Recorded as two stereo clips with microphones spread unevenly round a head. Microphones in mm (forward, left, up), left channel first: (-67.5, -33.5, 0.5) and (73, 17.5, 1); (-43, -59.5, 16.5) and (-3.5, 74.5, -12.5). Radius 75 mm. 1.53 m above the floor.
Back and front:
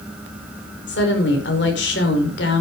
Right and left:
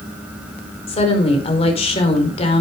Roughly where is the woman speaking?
Behind right.